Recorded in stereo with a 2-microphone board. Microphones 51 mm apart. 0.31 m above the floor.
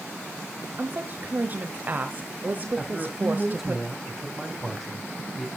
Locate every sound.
0.8 s a woman speaking: 35° right (ahead or behind), 1.1 m
2.8 s a man speaking: centre (ahead or behind), 1.4 m